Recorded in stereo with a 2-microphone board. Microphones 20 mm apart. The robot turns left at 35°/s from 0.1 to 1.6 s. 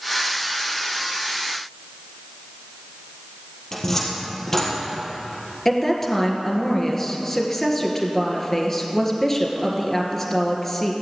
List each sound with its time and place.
3.7 s a cupboard door: 20° left (ahead or behind), 3.5 m
5.7 s a woman speaking: 15° left (ahead or behind), 2.5 m